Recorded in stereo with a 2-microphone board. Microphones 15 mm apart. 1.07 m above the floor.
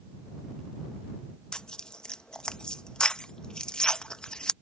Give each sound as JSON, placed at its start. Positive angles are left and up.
{"t": 1.5, "sound": "tearing paper", "side_deg": 75}